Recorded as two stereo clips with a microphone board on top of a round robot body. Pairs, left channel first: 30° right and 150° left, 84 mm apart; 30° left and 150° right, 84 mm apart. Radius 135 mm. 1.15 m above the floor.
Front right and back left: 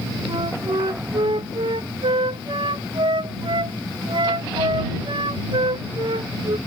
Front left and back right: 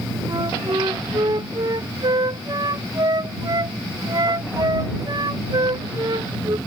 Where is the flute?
170° left.